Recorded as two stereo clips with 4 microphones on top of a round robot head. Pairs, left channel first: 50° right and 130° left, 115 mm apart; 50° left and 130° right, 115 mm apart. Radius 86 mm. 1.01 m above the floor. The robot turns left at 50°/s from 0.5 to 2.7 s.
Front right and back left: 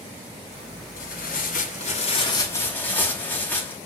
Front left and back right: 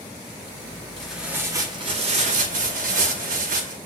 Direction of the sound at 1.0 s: 35° right.